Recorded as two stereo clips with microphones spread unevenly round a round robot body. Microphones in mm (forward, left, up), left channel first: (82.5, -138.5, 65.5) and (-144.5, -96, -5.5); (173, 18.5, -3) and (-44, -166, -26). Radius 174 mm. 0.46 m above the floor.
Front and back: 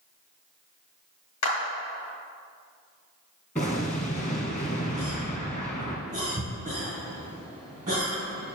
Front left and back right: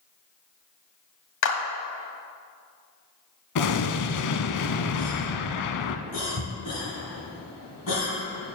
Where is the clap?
20° left, 1.9 m.